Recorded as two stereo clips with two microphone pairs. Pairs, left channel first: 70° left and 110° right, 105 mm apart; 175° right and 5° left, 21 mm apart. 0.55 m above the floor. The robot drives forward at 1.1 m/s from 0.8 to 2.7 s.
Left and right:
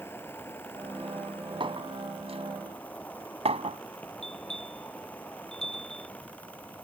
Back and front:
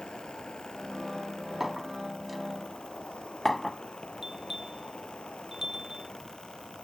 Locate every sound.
0.0 s an insect: 140° left; by 6.8 s 145° left
1.6 s a clink: 75° right; by 3.8 s 95° right
4.2 s a bell: 70° left